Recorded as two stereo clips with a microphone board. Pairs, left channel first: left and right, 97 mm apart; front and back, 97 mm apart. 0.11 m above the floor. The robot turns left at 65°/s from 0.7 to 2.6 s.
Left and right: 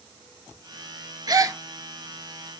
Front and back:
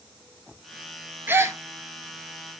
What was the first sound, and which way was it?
A gasp, 115° right.